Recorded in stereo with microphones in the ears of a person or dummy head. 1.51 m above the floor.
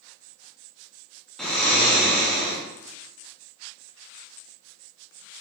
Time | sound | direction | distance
1.4 | snoring | centre (ahead or behind) | 1.2 m